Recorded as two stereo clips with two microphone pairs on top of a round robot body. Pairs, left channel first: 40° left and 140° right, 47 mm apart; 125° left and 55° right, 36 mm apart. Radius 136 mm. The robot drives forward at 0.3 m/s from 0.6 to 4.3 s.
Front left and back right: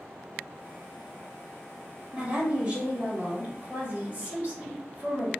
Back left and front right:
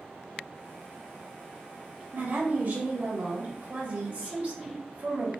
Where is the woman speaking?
75° right, 2 m; by 5.3 s 95° right, 2 m.